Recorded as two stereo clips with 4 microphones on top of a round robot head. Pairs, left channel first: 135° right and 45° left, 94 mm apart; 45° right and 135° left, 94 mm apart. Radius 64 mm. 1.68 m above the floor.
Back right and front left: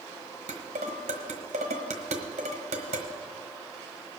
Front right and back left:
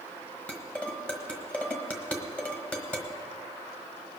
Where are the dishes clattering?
35° left, 1.3 m.